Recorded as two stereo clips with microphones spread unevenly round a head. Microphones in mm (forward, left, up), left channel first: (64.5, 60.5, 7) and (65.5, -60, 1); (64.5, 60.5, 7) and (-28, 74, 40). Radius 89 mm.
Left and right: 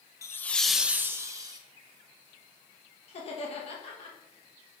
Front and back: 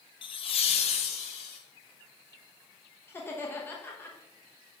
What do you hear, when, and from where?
0.2 s laughter: 30° left, 1.0 m; by 1.6 s 35° right, 1.6 m
3.1 s laughter: 60° left, 1.4 m